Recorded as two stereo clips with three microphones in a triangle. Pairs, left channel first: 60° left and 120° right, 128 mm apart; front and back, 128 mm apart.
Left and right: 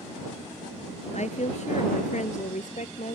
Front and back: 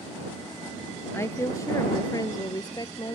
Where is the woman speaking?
65° left; by 3.1 s 55° left.